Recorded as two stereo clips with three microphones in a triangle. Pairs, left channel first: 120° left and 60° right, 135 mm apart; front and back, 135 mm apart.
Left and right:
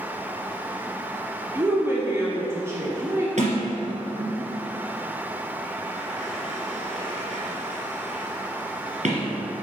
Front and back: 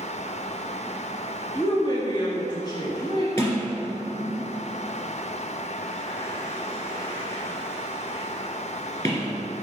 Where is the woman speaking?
5° right, 1.2 m.